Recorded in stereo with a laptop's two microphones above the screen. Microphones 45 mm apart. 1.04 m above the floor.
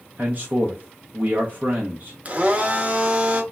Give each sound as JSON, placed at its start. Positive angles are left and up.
{"t": 0.2, "sound": "a man speaking", "side_deg": -40, "distance_m": 0.6}
{"t": 2.2, "sound": "a blender", "side_deg": -35, "distance_m": 0.6}